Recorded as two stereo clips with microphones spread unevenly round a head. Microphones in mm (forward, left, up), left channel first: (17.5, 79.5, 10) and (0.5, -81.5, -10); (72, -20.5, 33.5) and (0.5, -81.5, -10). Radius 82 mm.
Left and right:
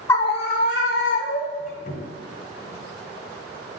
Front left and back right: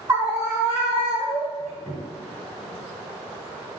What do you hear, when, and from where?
0.1 s a scream: 160° left, 0.5 m; by 1.7 s 100° left, 1.7 m
1.6 s a squeak: 120° left, 2.5 m